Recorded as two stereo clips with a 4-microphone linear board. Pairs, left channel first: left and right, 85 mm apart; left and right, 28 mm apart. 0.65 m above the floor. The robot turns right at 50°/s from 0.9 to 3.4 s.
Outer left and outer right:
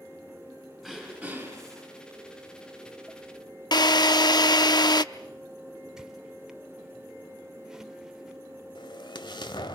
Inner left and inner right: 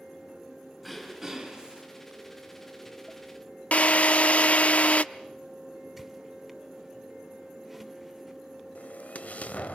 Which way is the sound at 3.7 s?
60° left (ahead or behind).